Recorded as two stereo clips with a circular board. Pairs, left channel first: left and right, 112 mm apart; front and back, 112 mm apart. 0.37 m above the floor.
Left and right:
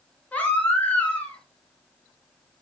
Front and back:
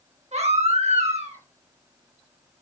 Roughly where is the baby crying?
Behind.